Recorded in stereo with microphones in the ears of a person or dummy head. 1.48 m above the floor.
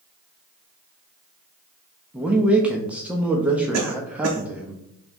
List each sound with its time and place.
2.1 s a man speaking: 15° right (ahead or behind), 0.5 m
3.7 s a cough: 90° right, 0.6 m